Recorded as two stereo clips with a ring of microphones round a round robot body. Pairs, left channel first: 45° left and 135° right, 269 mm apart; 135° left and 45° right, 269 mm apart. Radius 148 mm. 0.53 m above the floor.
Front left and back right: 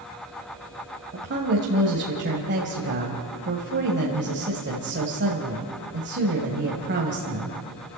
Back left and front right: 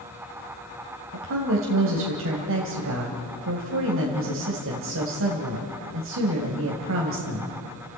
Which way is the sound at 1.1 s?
85° right.